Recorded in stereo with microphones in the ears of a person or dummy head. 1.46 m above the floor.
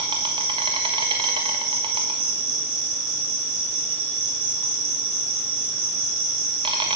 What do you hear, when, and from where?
0.0 s an insect: 25° right (ahead or behind), 1.3 m